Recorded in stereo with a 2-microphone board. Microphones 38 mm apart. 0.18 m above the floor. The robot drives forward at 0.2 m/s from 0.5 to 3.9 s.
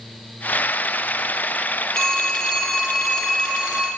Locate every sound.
1.9 s a phone ringing: 15° left (ahead or behind), 1.7 m; by 3.9 s 10° left (ahead or behind), 2 m